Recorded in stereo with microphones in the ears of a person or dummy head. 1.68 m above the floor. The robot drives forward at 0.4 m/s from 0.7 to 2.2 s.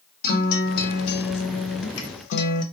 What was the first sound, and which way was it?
A guitar, 50° left (ahead or behind).